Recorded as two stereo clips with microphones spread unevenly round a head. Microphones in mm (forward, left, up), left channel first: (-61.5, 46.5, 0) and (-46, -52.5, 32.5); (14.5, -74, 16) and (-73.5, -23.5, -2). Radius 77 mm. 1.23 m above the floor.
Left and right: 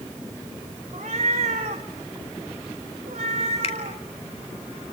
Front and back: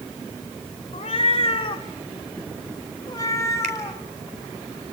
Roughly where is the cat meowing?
Ahead right.